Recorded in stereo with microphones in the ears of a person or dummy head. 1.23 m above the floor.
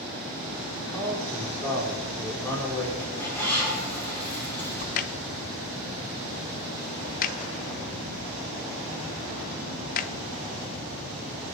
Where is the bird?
10° left (ahead or behind), 7.5 m.